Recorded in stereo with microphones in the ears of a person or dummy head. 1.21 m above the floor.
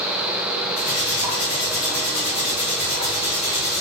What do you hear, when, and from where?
0.8 s cutlery clinking: 50° left (ahead or behind), 1.3 m